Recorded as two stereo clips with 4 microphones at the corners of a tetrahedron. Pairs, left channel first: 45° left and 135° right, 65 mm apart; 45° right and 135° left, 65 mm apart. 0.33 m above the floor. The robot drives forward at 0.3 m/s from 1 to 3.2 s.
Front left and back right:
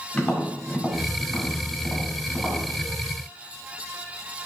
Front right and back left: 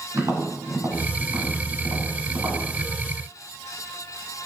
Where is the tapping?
120° left, 1.2 m; by 2.6 s 140° left, 1.4 m.